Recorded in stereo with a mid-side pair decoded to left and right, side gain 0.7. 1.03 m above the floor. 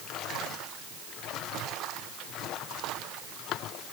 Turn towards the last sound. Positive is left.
No sound to turn to.